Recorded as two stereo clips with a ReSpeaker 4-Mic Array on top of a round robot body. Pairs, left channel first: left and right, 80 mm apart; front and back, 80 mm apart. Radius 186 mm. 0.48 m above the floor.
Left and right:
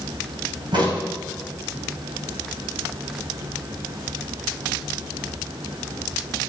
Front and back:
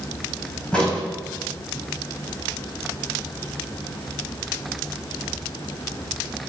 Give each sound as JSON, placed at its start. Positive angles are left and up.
{"t": 0.7, "sound": "a crack", "azimuth_deg": -80, "distance_m": 5.0}